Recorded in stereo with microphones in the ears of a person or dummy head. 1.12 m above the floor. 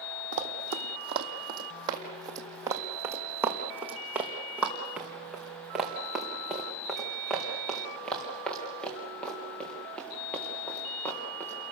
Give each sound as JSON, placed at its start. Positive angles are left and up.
{"t": 0.3, "sound": "running footsteps", "side_deg": -40, "distance_m": 2.0}